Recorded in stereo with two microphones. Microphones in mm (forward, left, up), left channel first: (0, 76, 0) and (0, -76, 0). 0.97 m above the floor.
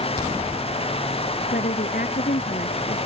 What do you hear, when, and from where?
1.5 s a woman speaking: 70° left (ahead or behind)